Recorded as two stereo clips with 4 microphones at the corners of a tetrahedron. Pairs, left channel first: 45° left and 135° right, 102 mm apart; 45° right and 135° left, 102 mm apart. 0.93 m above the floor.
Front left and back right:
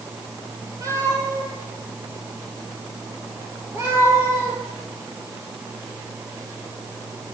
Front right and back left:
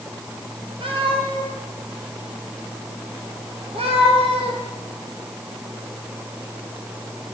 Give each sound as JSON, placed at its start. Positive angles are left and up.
{"t": 0.8, "sound": "a cat meowing", "azimuth_deg": 170, "distance_m": 8.5}